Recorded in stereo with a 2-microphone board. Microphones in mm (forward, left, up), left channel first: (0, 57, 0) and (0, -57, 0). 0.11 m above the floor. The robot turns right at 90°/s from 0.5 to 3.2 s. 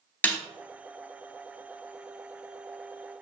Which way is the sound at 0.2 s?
15° left (ahead or behind).